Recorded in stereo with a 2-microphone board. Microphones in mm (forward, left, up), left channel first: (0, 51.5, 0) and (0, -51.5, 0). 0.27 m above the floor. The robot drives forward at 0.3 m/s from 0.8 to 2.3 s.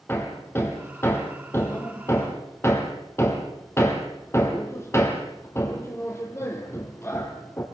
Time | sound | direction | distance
0.1 | hammering | 25° left (ahead or behind) | 4 m